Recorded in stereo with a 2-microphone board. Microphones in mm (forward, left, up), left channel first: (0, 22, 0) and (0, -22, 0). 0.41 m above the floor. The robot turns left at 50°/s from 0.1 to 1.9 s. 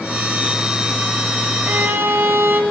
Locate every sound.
1.6 s a violin: 50° right (ahead or behind), 0.9 m; by 2.6 s 60° right (ahead or behind), 0.9 m